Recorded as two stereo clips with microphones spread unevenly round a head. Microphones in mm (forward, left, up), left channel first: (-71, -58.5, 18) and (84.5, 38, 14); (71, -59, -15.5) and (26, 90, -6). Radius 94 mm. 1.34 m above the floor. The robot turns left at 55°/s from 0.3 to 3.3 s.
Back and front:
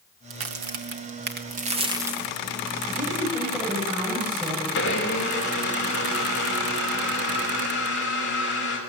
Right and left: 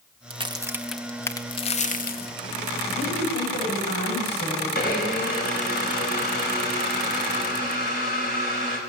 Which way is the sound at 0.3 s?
55° left.